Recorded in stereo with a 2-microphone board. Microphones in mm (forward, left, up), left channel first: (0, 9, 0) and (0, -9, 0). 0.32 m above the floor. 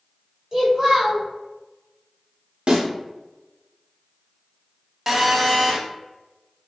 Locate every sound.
0.5 s a child speaking: 25° right (ahead or behind), 1.2 m
2.7 s a snare drum: 50° right (ahead or behind), 0.9 m
5.1 s a phone buzzing: 15° right (ahead or behind), 0.6 m